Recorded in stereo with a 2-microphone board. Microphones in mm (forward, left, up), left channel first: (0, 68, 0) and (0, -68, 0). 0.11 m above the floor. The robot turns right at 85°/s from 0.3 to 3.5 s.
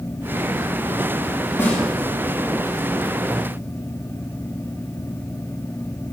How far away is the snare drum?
About 5 m.